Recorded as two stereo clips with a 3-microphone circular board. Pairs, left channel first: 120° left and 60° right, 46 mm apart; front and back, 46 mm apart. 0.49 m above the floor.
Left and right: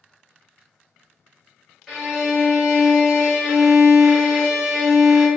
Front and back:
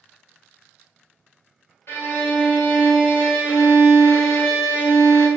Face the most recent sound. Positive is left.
turn(degrees=25)